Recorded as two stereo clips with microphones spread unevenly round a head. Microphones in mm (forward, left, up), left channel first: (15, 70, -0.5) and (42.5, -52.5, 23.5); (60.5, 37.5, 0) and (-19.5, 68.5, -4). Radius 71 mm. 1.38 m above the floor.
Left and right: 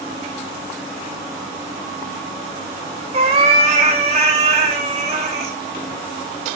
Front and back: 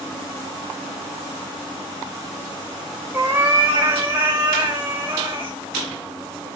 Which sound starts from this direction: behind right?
A cat meowing, at 3.1 s.